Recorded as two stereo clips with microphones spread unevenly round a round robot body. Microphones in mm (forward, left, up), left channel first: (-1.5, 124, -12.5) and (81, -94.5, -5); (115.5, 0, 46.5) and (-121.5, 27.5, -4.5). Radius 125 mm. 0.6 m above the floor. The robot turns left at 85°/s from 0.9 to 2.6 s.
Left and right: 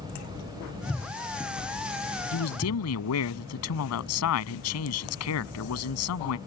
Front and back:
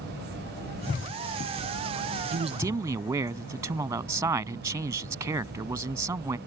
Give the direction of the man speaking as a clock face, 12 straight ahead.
8 o'clock.